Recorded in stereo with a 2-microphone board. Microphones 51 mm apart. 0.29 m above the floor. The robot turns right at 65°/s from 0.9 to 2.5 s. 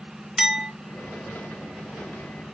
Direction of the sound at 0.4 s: 10° right (ahead or behind).